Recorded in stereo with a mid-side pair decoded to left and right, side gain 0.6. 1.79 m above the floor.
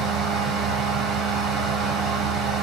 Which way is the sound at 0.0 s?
60° right.